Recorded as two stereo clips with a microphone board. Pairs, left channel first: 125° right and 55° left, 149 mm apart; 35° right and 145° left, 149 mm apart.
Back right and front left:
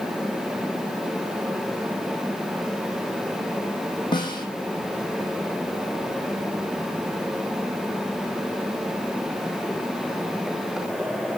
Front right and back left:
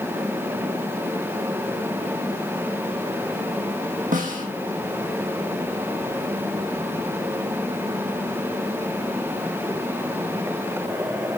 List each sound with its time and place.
4.1 s a snare drum: 175° left, 1.8 m